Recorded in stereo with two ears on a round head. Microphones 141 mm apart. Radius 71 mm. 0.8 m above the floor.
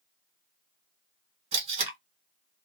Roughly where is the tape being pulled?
Right.